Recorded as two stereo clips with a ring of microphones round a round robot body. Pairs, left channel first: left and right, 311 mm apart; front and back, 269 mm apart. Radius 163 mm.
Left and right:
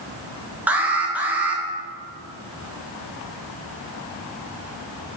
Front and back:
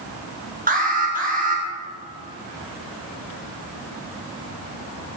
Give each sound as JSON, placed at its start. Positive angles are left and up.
{"t": 0.7, "sound": "an alarm", "azimuth_deg": -170, "distance_m": 1.8}